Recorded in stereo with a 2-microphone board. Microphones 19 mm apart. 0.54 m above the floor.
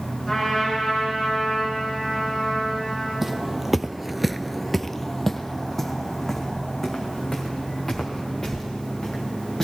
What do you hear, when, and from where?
0.3 s a trumpet: 5° left (ahead or behind), 7.5 m
3.2 s footsteps: 15° right (ahead or behind), 1.2 m; by 9.7 s 15° left (ahead or behind), 5.5 m